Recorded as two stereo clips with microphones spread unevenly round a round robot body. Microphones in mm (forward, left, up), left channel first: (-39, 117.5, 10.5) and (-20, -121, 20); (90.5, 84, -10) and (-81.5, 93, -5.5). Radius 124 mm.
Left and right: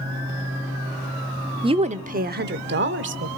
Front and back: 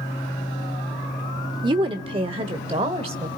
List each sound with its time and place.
1.6 s a woman speaking: 140° right, 0.8 m; by 3.3 s 115° right, 1.5 m